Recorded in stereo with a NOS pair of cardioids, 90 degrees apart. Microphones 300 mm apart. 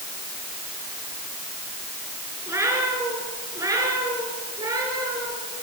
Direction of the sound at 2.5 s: 10° right.